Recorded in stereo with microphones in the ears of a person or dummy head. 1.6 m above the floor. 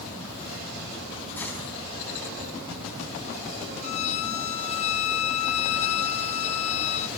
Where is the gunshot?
10° left (ahead or behind), 4.5 m.